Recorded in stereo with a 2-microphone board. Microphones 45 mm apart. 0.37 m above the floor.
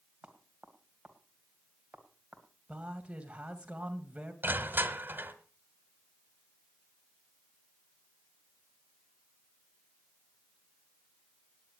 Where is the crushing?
50° right (ahead or behind), 1.5 m.